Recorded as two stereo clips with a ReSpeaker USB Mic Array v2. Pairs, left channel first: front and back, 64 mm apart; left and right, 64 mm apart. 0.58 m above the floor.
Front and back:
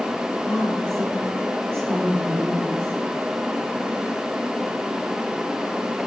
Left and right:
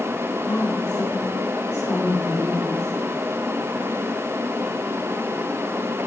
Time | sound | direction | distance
0.4 | a woman speaking | 80° left | 3.5 m